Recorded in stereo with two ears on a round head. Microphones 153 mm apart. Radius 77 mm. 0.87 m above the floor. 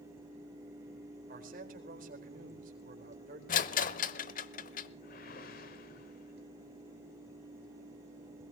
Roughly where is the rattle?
Left.